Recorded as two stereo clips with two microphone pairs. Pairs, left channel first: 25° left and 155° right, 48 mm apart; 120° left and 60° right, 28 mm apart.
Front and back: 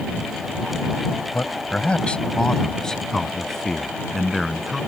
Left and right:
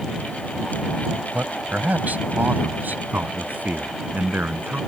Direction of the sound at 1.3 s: 30° right.